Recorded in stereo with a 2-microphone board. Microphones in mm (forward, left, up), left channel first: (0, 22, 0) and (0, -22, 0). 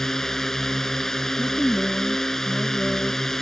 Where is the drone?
5° left (ahead or behind).